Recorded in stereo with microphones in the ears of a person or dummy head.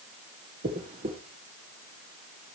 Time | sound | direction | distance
0.6 | a dropped coin | 25° right (ahead or behind) | 1.2 m